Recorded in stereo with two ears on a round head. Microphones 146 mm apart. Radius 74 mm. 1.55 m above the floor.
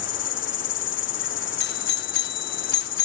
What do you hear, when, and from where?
0.0 s an insect: 85° left
1.6 s a doorbell: 65° left (ahead or behind)